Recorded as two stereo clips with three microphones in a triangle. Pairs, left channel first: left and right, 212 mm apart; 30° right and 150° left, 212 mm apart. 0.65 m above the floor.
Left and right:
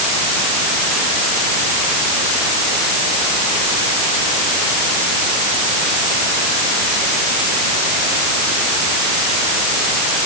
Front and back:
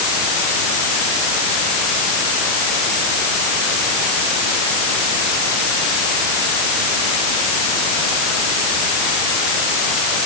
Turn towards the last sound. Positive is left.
No sound to turn to.